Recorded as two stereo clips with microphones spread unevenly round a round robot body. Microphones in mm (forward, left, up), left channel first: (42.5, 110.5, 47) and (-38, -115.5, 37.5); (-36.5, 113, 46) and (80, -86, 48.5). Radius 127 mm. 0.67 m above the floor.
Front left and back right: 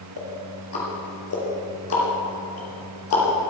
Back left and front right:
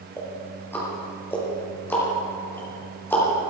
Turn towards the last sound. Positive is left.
turn(degrees=40)